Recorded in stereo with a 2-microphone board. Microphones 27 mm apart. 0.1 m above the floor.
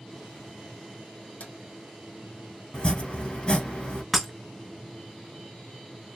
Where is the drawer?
70° left (ahead or behind), 1.9 m.